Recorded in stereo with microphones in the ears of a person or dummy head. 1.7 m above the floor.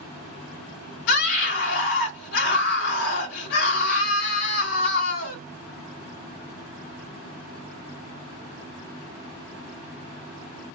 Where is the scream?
60° left (ahead or behind), 0.6 m.